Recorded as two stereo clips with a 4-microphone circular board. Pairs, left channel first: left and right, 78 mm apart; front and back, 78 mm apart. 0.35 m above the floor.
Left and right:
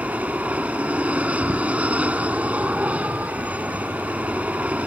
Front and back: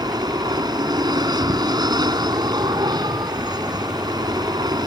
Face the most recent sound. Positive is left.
turn(degrees=-160)